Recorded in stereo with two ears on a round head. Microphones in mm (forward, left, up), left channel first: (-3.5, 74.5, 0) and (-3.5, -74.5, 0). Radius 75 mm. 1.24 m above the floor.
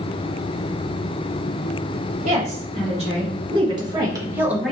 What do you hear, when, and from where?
2.2 s a woman speaking: 45° right (ahead or behind), 2 m; by 4.7 s centre (ahead or behind), 0.9 m